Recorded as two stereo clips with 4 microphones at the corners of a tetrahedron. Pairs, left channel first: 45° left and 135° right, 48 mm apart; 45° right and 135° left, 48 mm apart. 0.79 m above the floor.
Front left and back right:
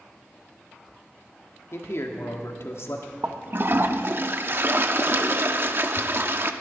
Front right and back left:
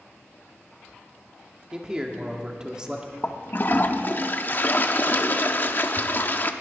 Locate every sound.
1.7 s a man speaking: 60° left, 1.6 m
3.2 s a toilet flushing: 95° right, 0.7 m